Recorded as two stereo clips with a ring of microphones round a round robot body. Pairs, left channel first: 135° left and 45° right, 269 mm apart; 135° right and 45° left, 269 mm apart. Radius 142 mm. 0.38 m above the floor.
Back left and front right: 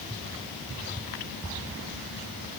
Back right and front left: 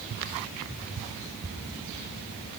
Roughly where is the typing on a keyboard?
I don't hear typing on a keyboard.